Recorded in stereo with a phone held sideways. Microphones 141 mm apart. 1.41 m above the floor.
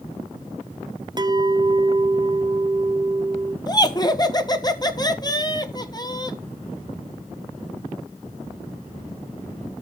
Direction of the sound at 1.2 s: 30° right (ahead or behind).